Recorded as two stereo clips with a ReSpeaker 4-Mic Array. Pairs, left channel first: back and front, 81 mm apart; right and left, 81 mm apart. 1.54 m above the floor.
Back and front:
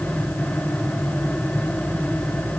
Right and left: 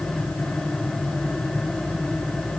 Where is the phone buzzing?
No phone buzzing in this recording.